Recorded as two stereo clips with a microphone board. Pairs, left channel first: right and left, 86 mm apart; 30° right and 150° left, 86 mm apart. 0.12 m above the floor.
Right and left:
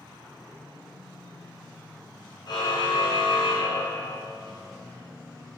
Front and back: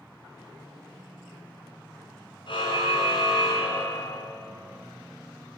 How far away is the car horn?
About 8.5 m.